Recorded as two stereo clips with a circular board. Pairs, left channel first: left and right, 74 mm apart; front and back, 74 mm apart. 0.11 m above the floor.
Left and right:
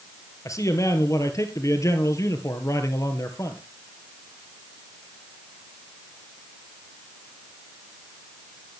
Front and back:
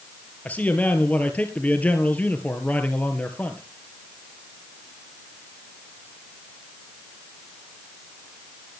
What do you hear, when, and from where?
0.5 s a man speaking: 65° left, 1.9 m